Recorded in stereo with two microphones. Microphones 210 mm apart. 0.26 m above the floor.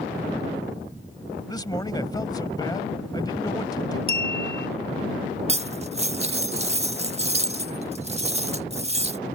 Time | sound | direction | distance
1.5 | a man speaking | 20° left (ahead or behind) | ?
4.1 | a clink | 25° right (ahead or behind) | ?
5.5 | cutlery clinking | 30° right (ahead or behind) | ?